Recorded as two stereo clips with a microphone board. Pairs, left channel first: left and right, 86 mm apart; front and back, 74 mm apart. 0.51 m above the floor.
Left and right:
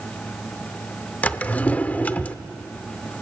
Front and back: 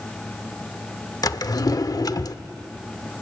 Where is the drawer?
20° left, 0.6 m.